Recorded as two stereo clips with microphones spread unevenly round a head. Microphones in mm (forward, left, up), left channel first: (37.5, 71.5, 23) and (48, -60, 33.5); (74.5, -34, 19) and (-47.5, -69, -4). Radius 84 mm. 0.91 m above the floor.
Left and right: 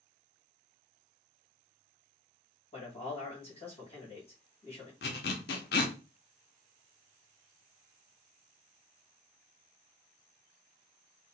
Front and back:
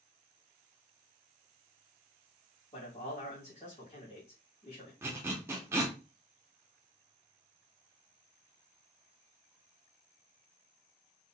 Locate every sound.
2.7 s a man speaking: 65° left, 1.6 m
5.0 s a zipper: 115° left, 0.5 m